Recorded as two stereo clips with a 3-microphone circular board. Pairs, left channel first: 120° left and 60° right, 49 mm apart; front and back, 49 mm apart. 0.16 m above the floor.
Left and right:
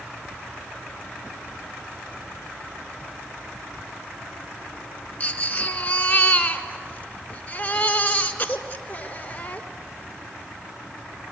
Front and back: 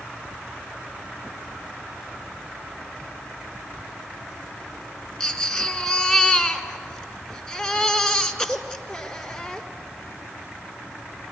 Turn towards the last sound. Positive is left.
turn(degrees=75)